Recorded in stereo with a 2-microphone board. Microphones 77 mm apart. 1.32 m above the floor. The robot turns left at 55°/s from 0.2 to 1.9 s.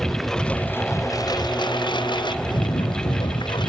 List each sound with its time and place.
0.0 s a lawn mower: straight behind; by 3.7 s 85° left